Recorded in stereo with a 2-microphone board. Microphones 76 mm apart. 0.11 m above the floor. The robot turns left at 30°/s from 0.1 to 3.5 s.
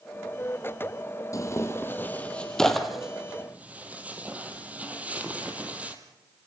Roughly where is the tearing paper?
Left.